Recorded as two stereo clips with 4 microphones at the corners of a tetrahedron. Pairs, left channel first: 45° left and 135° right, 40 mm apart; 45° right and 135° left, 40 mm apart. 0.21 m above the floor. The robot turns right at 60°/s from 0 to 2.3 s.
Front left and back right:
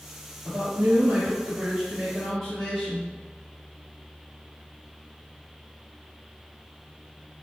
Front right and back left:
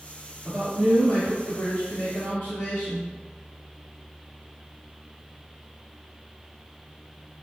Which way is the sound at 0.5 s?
140° right.